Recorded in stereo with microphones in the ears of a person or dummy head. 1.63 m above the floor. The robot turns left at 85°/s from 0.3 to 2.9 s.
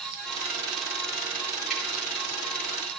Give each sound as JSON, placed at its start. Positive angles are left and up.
{"t": 1.7, "sound": "dripping", "side_deg": 0, "distance_m": 8.0}